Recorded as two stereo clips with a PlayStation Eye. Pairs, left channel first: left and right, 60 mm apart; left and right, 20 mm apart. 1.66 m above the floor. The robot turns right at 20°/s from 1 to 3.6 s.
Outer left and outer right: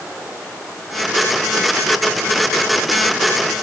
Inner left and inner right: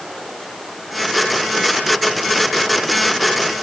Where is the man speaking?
No man speaking in this recording.